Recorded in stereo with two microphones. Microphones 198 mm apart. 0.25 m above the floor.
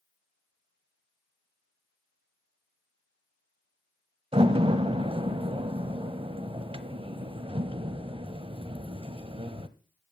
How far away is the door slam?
About 0.9 m.